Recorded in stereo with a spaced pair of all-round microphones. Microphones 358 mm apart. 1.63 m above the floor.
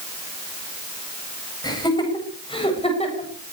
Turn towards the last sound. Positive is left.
turn(degrees=20)  # may be behind; listen again after turning